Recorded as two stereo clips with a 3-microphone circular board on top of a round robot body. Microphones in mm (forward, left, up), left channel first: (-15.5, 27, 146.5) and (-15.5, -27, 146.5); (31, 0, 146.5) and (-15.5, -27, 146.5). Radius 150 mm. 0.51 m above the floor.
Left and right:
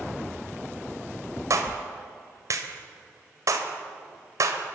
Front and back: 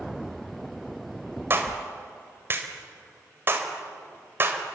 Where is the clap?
105° right, 2.5 m.